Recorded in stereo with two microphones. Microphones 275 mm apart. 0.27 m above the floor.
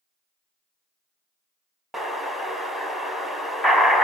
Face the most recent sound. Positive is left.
turn(degrees=0)  # may be behind; listen again after turning